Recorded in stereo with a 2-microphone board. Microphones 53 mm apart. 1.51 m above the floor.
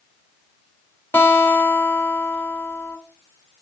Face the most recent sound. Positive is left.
turn(degrees=45)  # may be behind; listen again after turning